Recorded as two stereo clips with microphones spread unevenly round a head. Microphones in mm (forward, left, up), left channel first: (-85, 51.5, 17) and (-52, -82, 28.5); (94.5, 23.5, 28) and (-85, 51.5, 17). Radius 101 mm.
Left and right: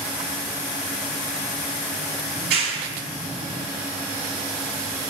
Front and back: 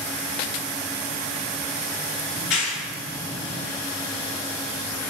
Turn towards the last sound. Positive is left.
turn(degrees=-50)